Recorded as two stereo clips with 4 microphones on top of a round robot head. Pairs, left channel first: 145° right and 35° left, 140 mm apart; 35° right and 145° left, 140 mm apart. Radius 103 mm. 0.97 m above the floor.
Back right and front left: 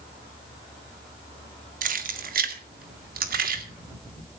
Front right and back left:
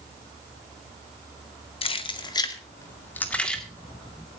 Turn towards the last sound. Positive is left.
turn(degrees=50)